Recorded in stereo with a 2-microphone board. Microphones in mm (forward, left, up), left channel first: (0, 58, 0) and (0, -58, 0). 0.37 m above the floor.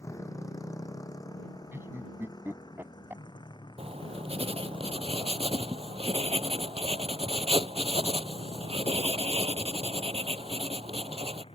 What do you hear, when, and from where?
0.0 s a motorcycle: 25° left (ahead or behind); by 11.5 s 50° left (ahead or behind)
1.7 s laughter: 20° right (ahead or behind)
3.8 s writing: 55° right (ahead or behind)